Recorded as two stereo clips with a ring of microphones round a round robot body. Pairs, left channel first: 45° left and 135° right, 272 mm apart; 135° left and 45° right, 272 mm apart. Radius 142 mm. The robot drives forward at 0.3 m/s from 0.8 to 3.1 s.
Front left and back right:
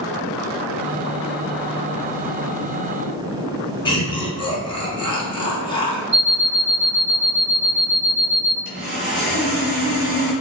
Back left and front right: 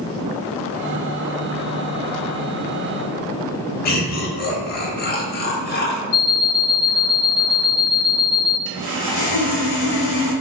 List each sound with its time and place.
3.9 s laughter: 105° left, 1.0 m
6.1 s an alarm clock: 160° right, 1.0 m
8.7 s sawing: 165° left, 1.7 m